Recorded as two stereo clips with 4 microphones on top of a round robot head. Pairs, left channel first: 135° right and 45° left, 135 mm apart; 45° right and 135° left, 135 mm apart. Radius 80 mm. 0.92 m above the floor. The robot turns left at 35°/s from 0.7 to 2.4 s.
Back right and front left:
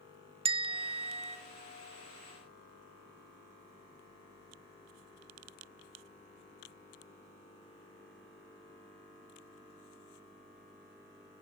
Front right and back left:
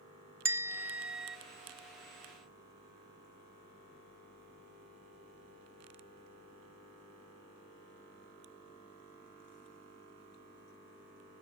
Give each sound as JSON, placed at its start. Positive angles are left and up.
{"t": 0.5, "sound": "a bell", "azimuth_deg": 70, "distance_m": 1.0}